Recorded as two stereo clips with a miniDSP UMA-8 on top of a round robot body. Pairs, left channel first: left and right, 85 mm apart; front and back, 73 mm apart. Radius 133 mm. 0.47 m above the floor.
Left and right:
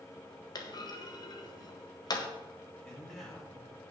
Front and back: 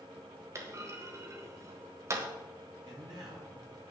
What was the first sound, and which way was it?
A clunk, 130° left.